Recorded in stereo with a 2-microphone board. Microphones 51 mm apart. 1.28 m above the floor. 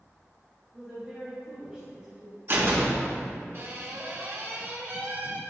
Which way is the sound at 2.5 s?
45° right (ahead or behind).